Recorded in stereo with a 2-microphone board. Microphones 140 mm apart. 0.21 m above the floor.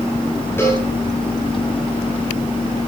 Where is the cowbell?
15° left (ahead or behind), 5.5 m.